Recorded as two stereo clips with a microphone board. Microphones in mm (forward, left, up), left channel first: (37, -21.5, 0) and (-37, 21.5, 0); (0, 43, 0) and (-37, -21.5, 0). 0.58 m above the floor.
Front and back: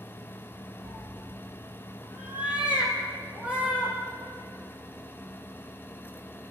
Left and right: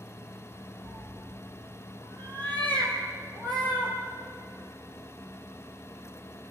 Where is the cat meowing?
145° right, 3 m; by 4.0 s 130° right, 6 m.